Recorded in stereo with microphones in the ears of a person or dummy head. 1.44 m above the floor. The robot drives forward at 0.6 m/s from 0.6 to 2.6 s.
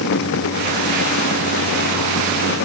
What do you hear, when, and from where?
Only background noise.